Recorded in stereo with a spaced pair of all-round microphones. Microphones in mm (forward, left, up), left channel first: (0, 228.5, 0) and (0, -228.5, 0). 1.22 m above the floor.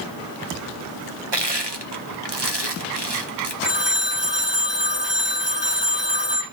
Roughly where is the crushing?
Right.